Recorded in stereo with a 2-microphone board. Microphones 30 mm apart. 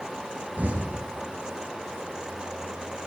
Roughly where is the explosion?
Right.